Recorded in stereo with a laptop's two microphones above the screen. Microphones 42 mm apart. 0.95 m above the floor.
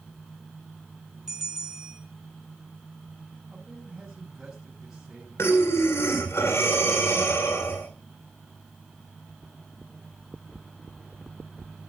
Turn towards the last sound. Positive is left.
turn(degrees=80)